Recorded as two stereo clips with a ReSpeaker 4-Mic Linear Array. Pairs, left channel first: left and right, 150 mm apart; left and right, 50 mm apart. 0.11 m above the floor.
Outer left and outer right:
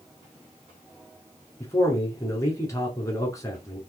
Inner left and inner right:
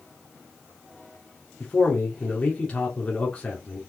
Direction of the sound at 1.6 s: 20° left (ahead or behind).